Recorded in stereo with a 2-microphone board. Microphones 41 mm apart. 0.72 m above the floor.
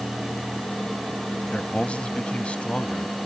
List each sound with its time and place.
1.5 s a man speaking: 30° left (ahead or behind)